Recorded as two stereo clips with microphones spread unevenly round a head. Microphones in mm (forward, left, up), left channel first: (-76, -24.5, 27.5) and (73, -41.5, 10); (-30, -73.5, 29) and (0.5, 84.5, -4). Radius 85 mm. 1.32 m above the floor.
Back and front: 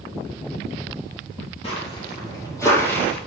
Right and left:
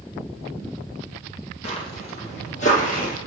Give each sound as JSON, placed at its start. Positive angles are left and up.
{"t": 1.6, "sound": "footsteps", "azimuth_deg": -145, "distance_m": 2.5}